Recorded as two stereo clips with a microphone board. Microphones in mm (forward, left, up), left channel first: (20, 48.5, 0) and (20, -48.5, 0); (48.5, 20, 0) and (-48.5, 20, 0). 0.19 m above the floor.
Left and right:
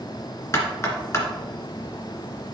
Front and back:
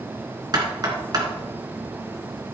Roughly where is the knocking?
Behind left.